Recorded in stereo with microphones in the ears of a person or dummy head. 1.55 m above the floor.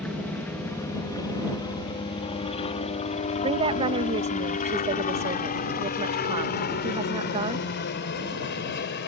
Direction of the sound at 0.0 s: 5° left (ahead or behind).